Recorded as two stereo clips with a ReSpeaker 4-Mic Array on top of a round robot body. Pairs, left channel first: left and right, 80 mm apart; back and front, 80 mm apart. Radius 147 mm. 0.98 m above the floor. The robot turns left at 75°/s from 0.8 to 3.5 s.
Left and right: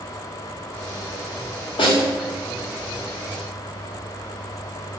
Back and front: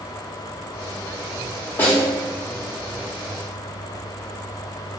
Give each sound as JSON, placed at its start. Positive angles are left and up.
{"t": 1.8, "sound": "a snare drum", "azimuth_deg": 110, "distance_m": 1.1}